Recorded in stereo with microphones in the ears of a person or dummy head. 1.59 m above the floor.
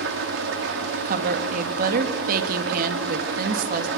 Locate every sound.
0.0 s an engine running: 65° right (ahead or behind), 2 m
1.1 s a woman speaking: 50° right (ahead or behind), 2.5 m